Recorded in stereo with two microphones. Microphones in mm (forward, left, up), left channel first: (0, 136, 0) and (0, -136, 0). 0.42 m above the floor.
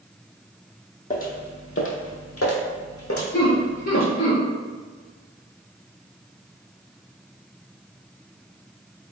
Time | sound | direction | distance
1.1 | footsteps | 30° left (ahead or behind) | 0.8 m
3.3 | laughter | 30° left (ahead or behind) | 1.4 m